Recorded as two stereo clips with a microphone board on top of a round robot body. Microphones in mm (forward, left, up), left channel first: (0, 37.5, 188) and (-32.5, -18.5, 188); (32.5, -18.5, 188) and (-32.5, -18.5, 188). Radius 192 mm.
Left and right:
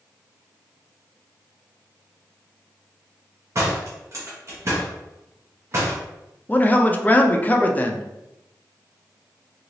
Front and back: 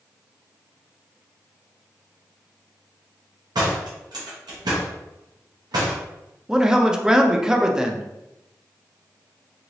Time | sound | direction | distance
3.5 | a door slam | 165° right | 0.6 m
6.5 | a man speaking | 105° left | 0.7 m